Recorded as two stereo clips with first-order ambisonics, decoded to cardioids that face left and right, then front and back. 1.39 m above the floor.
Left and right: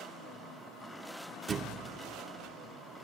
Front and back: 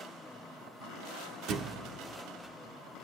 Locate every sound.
1.5 s a thud: 155° right, 1.2 m